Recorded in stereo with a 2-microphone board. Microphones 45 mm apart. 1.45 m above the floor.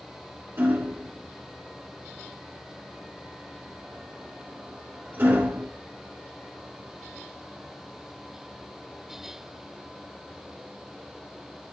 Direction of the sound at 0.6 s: 55° right (ahead or behind).